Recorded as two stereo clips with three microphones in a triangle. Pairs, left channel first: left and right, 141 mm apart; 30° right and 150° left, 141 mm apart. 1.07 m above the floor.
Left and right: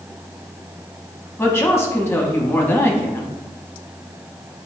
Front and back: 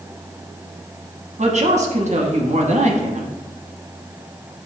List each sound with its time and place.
1.4 s a woman speaking: 160° left, 0.8 m